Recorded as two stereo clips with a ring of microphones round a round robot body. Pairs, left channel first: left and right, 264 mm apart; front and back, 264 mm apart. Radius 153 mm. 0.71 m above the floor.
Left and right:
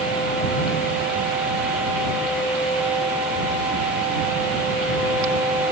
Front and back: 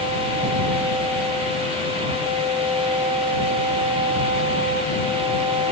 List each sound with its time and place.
Only background noise.